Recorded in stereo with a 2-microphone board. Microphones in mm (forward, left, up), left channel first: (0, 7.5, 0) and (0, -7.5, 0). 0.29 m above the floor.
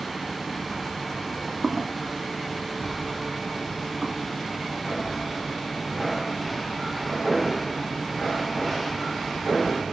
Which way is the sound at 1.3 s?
65° right (ahead or behind).